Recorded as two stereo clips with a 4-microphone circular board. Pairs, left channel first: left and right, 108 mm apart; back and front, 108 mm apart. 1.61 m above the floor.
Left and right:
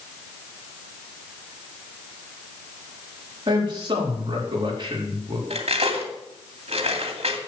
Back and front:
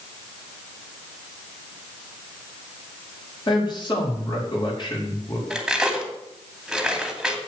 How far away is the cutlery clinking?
About 2.5 m.